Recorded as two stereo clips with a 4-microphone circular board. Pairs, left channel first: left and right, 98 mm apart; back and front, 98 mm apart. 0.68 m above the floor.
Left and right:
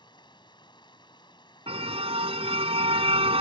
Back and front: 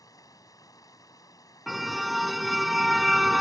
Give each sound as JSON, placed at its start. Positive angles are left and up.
{"t": 0.0, "sound": "running water", "azimuth_deg": 130}
{"t": 1.7, "sound": "a car horn", "azimuth_deg": -90}